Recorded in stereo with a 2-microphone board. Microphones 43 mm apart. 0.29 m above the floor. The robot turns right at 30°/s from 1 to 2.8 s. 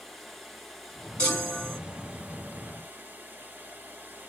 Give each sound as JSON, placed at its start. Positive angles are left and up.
{"t": 0.0, "sound": "running water", "azimuth_deg": 175, "distance_m": 2.5}
{"t": 1.2, "sound": "a chime", "side_deg": 25, "distance_m": 3.5}